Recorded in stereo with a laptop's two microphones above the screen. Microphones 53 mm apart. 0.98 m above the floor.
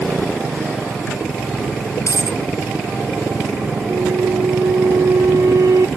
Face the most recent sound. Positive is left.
turn(degrees=-80)